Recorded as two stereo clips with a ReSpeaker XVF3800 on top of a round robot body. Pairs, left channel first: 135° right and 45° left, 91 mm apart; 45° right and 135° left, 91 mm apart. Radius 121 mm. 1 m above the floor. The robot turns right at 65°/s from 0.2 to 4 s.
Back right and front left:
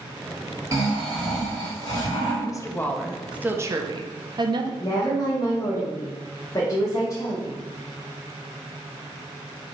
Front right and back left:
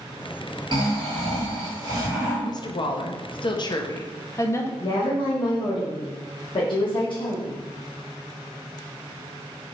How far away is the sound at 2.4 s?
About 0.6 m.